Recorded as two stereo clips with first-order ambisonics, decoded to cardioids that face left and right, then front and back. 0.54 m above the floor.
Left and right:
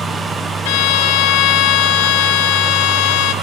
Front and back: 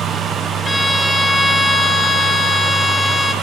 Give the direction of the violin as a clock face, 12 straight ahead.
9 o'clock.